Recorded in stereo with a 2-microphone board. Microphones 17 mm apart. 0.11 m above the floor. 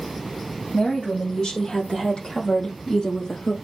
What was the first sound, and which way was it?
A woman speaking, 55° left (ahead or behind).